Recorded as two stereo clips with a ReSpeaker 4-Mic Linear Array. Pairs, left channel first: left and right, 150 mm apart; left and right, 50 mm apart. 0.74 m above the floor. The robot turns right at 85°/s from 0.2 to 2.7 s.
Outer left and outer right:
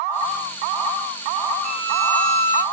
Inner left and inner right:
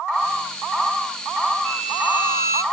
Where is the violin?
175° left, 1.7 m; by 2.6 s 100° right, 1.7 m.